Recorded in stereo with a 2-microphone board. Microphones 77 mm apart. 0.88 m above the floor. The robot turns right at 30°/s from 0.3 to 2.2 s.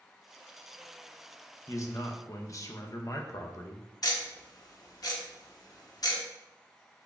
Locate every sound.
1.7 s a man speaking: 40° left (ahead or behind), 0.5 m; by 3.9 s 45° left (ahead or behind), 0.5 m
4.0 s ticking: 55° left (ahead or behind), 0.8 m